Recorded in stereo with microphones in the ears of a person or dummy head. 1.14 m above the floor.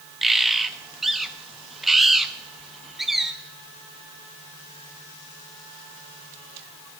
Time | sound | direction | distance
0.2 | a bird | centre (ahead or behind) | 0.7 m